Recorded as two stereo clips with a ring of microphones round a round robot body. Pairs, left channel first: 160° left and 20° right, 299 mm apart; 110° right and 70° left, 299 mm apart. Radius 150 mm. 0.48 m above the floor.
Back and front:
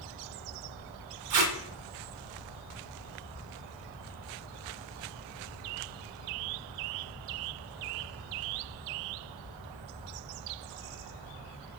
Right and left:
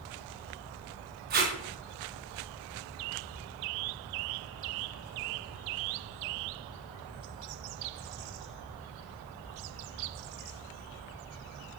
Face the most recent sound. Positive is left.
turn(degrees=5)